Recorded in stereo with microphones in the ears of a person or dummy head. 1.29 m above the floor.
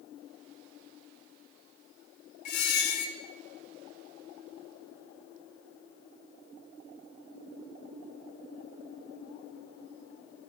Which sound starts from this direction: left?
A squeak, at 2.5 s.